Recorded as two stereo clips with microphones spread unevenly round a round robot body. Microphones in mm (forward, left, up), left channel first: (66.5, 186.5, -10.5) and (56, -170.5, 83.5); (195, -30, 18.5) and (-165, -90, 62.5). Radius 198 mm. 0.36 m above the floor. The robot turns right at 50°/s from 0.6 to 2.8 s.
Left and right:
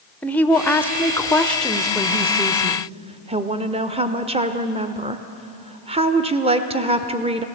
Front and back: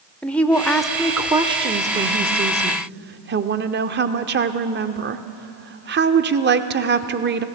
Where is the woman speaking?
70° left, 0.8 m; by 7.5 s straight behind, 0.8 m.